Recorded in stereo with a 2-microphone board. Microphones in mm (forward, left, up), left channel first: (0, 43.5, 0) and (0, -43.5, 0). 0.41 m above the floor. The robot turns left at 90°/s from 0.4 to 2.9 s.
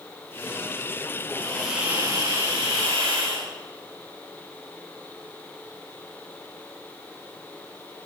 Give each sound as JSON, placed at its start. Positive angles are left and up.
{"t": 1.3, "sound": "a hiss", "azimuth_deg": 35, "distance_m": 9.0}